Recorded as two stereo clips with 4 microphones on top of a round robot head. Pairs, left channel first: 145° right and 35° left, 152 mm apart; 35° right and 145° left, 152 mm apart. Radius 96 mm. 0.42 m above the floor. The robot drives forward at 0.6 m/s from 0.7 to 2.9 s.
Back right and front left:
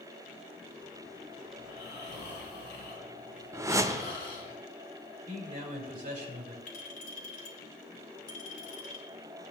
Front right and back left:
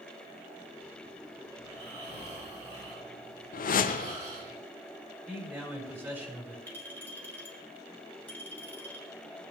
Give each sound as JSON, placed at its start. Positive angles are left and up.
{"t": 1.6, "sound": "snoring", "azimuth_deg": -160, "distance_m": 5.0}
{"t": 3.5, "sound": "a whoosh", "azimuth_deg": -35, "distance_m": 0.6}
{"t": 5.3, "sound": "a man speaking", "azimuth_deg": 70, "distance_m": 4.0}
{"t": 6.7, "sound": "a clink", "azimuth_deg": -110, "distance_m": 2.5}